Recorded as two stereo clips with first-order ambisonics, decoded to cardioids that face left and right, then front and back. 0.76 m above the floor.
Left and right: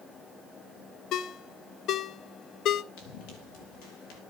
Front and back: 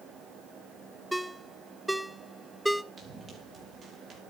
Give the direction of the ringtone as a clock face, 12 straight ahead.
9 o'clock.